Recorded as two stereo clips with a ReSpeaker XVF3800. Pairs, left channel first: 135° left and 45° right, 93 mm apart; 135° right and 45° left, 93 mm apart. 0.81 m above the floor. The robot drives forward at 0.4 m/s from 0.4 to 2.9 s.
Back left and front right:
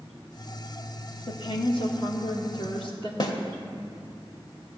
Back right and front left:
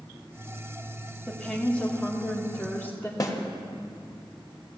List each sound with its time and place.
1.3 s a woman speaking: 145° left, 1.5 m; by 3.1 s 155° left, 2 m
3.2 s a snare drum: 175° left, 1.4 m